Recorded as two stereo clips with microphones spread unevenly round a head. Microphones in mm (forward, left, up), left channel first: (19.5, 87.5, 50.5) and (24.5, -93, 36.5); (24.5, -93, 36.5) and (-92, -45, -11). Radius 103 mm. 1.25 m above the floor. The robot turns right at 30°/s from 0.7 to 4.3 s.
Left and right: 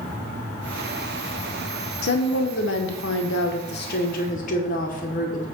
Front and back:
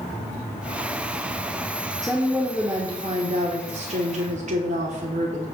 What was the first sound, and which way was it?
A woman speaking, 70° left.